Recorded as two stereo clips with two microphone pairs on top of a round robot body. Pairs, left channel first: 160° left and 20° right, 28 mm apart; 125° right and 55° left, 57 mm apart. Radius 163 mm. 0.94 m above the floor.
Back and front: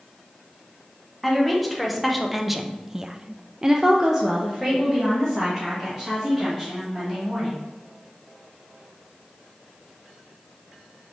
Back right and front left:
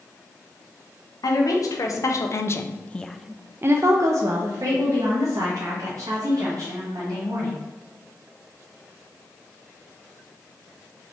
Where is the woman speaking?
110° right, 1.1 m; by 7.6 s 55° left, 2.5 m.